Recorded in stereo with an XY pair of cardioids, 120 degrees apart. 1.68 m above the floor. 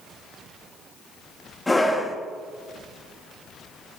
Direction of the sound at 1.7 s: 5° left.